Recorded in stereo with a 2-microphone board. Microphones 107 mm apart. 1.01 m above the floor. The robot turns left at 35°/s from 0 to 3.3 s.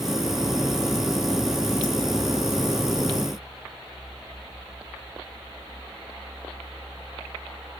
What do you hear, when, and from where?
Only background noise.